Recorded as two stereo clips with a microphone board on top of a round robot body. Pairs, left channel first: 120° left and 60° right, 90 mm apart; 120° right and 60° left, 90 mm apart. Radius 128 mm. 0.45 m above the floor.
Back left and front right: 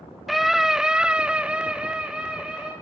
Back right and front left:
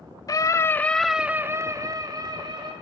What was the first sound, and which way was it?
A scream, 145° right.